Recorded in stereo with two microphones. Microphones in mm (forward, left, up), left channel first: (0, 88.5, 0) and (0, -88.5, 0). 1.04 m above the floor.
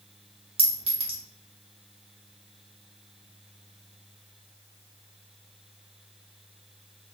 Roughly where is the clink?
Right.